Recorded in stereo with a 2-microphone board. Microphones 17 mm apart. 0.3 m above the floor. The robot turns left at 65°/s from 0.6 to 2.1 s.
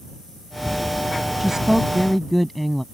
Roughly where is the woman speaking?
Behind right.